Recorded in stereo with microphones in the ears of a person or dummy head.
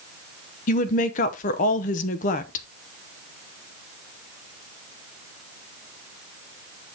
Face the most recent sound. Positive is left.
turn(degrees=45)  # may be behind; listen again after turning